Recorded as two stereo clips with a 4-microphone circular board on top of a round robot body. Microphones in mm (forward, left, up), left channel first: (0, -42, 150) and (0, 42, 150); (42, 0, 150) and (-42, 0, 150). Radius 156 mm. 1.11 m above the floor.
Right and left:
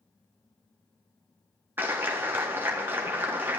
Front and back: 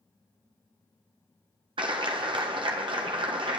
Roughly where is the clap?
Behind left.